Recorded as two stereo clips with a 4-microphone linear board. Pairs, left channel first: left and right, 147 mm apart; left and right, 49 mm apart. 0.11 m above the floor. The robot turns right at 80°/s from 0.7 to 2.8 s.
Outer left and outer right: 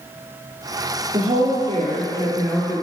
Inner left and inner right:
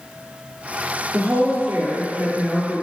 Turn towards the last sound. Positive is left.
turn(degrees=0)